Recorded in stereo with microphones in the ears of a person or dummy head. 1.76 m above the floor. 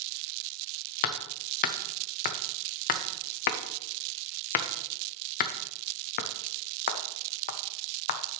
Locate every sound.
1.0 s hammering: 50° left (ahead or behind), 0.6 m